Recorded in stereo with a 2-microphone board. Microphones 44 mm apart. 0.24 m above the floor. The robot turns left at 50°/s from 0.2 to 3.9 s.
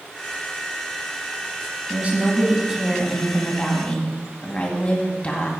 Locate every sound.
1.9 s a woman speaking: 120° right, 2 m; by 5.5 s 140° left, 2 m